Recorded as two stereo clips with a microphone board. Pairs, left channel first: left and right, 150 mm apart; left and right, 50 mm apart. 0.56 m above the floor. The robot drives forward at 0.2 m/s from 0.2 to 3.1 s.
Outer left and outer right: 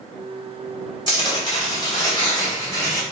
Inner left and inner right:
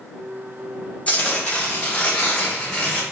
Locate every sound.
1.1 s tearing paper: 30° left (ahead or behind), 1.3 m; by 3.0 s 25° left (ahead or behind), 1.6 m